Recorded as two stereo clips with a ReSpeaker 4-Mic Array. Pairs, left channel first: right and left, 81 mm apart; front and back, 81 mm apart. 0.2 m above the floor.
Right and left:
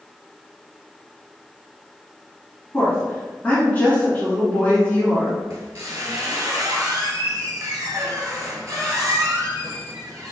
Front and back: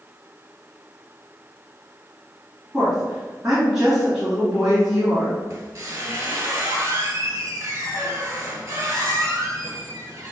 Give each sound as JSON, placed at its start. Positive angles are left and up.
{"t": 2.7, "sound": "a woman speaking", "azimuth_deg": -105, "distance_m": 1.6}
{"t": 5.5, "sound": "a squeak", "azimuth_deg": 135, "distance_m": 0.9}